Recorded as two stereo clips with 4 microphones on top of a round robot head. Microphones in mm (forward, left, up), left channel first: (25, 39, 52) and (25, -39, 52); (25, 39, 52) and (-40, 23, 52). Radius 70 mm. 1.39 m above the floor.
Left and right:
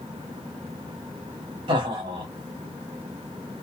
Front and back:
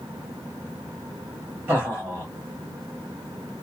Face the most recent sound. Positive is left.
turn(degrees=-105)